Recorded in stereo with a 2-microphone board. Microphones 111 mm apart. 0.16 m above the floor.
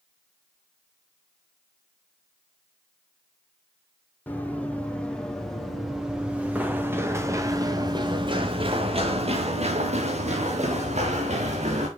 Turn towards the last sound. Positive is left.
turn(degrees=-85)